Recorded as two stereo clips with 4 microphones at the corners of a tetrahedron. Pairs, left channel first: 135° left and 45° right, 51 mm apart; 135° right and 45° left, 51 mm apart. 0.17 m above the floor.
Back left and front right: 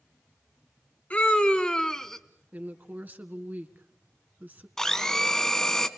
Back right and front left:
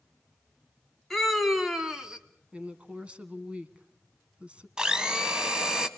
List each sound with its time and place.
1.1 s a scream: 145° left, 1.2 m; by 2.2 s 55° left, 1.2 m
2.5 s a woman speaking: 10° right, 1.6 m
4.8 s a blender: 80° left, 1.2 m